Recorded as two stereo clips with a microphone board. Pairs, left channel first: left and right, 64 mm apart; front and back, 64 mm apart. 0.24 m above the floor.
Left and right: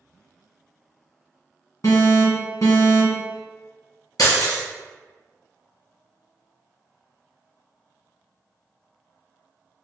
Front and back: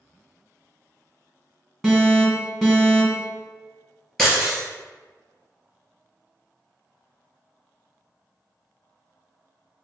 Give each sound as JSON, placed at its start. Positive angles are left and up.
{"t": 1.8, "sound": "an alarm", "azimuth_deg": 85, "distance_m": 1.8}
{"t": 4.2, "sound": "breaking glass", "azimuth_deg": 80, "distance_m": 1.9}